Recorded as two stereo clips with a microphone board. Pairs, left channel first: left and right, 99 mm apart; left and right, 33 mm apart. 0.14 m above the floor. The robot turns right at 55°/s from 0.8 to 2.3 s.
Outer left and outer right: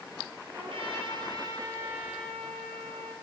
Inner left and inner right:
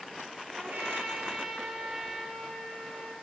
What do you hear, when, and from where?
0.5 s a trumpet: 80° right, 0.6 m; by 3.1 s straight ahead, 0.6 m